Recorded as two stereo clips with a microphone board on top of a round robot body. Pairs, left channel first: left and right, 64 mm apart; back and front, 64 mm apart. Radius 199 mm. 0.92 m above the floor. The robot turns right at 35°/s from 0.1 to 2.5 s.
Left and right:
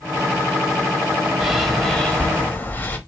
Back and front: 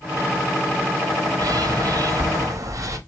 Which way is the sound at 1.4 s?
5° right.